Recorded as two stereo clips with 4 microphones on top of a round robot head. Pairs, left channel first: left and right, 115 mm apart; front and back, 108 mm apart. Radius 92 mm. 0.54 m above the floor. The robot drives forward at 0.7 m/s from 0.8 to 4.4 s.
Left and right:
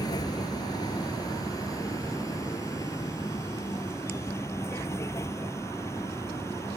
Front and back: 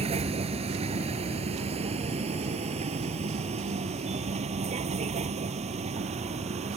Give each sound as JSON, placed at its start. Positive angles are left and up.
{"t": 0.0, "sound": "a vehicle", "azimuth_deg": 155}